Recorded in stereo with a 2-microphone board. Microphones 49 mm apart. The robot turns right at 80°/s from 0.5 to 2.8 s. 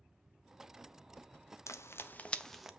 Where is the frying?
75° left (ahead or behind), 0.6 m; by 2.7 s 5° right (ahead or behind), 0.6 m.